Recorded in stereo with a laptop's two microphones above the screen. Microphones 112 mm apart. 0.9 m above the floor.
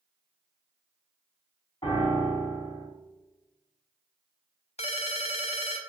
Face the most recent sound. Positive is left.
turn(degrees=65)  # may be behind; listen again after turning